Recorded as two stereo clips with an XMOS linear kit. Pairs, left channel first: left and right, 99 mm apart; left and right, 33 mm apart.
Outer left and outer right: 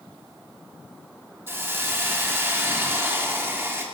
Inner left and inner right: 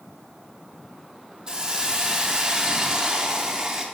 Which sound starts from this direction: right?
A hiss, at 1.5 s.